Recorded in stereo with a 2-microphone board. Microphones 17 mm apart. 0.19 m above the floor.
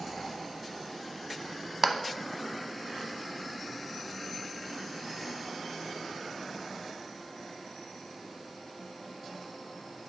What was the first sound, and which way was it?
A clap, 20° right (ahead or behind).